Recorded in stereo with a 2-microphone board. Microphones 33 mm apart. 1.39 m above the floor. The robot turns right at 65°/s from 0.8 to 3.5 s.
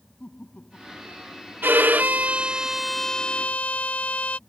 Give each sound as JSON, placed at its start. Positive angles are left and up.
{"t": 0.2, "sound": "laughter", "azimuth_deg": 45}
{"t": 1.6, "sound": "a violin", "azimuth_deg": -80}